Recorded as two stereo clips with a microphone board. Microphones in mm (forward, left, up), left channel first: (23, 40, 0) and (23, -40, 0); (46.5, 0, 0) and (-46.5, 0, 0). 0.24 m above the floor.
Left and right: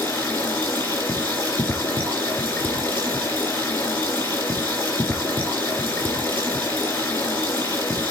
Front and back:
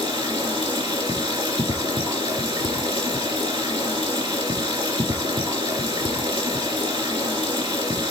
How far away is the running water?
About 3 m.